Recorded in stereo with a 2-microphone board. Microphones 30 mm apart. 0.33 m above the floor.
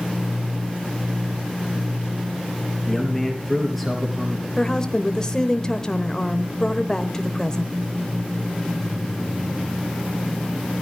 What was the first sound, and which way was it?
A man speaking, 5° left (ahead or behind).